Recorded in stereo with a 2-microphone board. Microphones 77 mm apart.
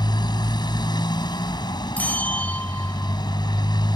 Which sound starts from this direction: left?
A motorcycle, at 0.0 s.